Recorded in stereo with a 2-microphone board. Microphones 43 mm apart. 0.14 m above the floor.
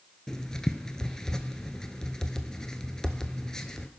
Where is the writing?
15° left (ahead or behind), 0.7 m.